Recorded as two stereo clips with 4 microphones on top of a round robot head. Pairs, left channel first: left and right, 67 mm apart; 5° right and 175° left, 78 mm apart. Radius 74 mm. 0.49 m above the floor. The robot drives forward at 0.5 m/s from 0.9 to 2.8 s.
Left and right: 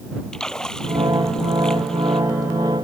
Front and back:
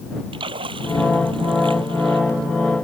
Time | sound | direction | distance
0.3 | a splash | 170° left | ?